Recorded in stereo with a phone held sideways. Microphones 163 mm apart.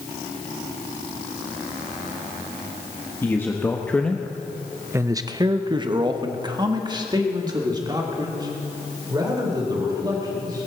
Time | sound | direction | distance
3.2 | a man speaking | 15° left (ahead or behind) | 1.4 m